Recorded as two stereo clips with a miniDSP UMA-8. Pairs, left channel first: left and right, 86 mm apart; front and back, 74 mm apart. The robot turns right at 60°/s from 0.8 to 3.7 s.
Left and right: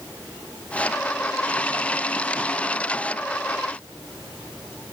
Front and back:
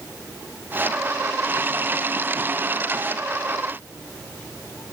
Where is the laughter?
I don't hear laughter.